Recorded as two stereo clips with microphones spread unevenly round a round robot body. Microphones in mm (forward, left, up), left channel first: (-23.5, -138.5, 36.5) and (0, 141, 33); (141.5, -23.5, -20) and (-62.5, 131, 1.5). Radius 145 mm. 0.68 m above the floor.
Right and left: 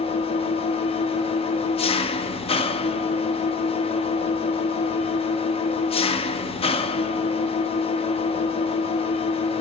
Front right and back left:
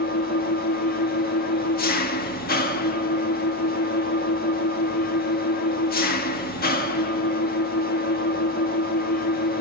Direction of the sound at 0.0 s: 35° right.